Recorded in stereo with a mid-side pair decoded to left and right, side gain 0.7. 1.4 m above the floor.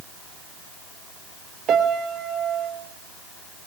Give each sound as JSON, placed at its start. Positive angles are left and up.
{"t": 1.7, "sound": "a piano", "azimuth_deg": -45, "distance_m": 4.0}